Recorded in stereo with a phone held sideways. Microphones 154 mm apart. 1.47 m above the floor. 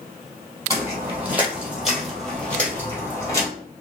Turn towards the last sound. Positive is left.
turn(degrees=20)  # may be behind; listen again after turning